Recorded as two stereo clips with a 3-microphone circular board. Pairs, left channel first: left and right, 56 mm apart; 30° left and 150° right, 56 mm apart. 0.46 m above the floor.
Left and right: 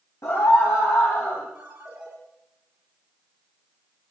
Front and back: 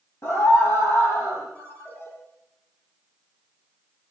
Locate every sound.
0.2 s a scream: 65° left, 3 m
1.6 s a ringtone: 25° right, 7 m